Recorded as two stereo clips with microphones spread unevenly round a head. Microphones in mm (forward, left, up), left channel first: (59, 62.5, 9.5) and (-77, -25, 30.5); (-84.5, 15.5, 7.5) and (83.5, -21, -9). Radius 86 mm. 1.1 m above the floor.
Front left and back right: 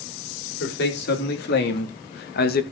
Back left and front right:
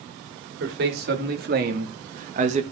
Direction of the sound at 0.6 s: 15° left.